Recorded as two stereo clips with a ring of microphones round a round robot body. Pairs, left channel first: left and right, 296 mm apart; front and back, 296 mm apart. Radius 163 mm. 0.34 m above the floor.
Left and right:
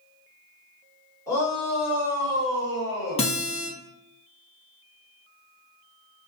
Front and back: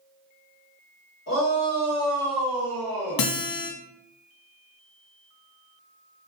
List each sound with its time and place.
1.3 s a shout: 15° left, 1.9 m; by 3.3 s 105° right, 1.6 m
3.2 s a guitar: 20° left, 0.7 m